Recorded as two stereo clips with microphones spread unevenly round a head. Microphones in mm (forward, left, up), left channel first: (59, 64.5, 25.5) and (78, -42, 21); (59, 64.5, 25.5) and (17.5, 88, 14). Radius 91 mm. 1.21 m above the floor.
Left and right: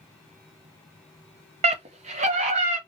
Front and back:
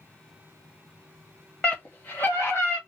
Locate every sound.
1.6 s a scream: 110° right, 0.6 m; by 2.8 s 100° right, 1.2 m